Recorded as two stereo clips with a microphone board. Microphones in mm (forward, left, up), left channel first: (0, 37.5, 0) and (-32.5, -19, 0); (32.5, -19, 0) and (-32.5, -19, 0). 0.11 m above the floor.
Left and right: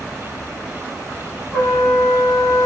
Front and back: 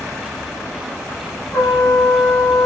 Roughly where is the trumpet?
Ahead.